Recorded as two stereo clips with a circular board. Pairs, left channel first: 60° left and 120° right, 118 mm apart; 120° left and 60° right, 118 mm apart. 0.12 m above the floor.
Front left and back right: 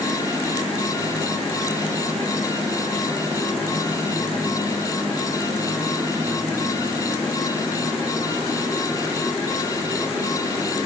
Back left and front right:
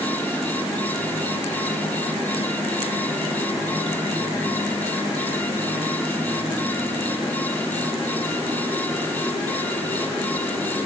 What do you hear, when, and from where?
Only background noise.